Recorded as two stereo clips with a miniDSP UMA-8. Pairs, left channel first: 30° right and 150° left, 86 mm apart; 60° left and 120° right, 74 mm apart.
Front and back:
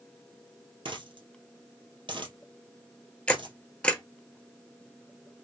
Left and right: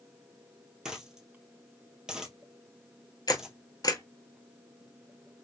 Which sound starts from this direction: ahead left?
A camera shutter, at 3.3 s.